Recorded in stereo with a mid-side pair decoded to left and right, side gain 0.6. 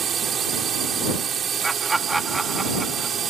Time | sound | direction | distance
0.0 | a drone | 40° right | ?
1.6 | laughter | 15° right | ?